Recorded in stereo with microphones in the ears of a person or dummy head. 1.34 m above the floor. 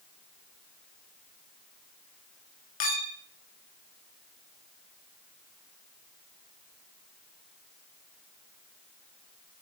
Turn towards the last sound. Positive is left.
turn(degrees=40)  # may be behind; listen again after turning